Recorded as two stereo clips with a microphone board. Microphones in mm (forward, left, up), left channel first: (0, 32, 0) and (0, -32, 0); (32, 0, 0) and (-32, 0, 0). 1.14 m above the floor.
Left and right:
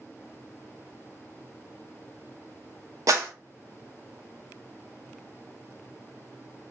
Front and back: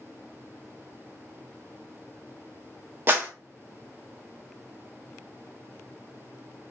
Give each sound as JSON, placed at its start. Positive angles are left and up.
{"t": 3.1, "sound": "a clap", "azimuth_deg": -125, "distance_m": 0.6}